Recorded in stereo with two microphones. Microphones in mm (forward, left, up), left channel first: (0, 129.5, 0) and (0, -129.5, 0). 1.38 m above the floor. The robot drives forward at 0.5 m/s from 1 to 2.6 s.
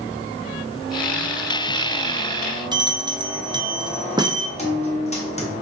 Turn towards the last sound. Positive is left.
turn(degrees=25)  # may be behind; listen again after turning